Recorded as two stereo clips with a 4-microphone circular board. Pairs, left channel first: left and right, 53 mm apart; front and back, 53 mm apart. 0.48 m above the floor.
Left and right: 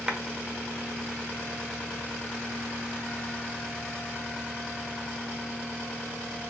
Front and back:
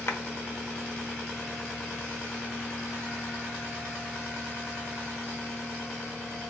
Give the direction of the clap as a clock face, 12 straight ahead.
1 o'clock.